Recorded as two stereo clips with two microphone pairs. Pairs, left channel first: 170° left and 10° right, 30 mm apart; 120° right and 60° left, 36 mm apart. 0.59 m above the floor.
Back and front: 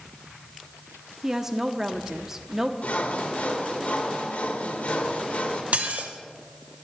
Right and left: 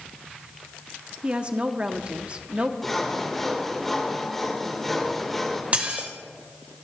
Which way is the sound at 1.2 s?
50° left.